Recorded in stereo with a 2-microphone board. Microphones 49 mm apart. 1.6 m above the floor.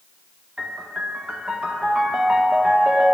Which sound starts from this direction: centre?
A piano, at 0.6 s.